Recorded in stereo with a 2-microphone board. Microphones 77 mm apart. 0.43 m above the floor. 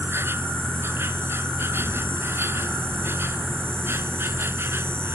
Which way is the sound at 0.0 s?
30° right (ahead or behind).